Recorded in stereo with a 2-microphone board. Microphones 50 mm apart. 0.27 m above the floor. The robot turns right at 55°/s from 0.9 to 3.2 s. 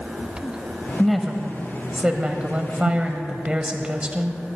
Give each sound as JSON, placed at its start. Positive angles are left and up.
{"t": 1.0, "sound": "a woman speaking", "side_deg": 5, "distance_m": 1.1}